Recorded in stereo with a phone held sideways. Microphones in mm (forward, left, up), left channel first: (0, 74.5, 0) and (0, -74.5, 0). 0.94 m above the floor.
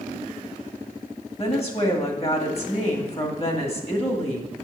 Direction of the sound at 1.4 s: 45° left (ahead or behind).